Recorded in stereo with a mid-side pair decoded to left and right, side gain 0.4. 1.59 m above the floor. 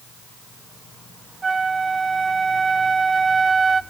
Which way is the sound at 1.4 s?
35° right.